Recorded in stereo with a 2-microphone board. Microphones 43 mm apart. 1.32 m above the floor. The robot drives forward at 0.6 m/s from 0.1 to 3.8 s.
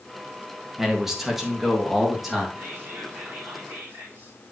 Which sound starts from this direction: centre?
A man speaking, at 0.8 s.